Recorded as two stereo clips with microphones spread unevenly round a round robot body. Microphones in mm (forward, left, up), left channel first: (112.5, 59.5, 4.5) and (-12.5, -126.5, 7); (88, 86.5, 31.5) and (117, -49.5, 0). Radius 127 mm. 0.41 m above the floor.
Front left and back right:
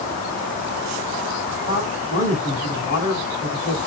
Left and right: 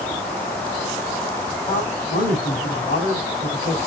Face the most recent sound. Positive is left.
turn(degrees=115)